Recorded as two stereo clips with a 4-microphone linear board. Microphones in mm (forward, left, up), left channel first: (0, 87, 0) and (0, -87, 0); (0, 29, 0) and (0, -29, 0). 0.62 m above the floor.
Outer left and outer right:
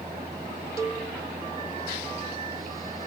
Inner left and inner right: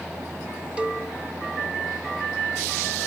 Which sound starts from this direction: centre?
A cowbell, at 0.8 s.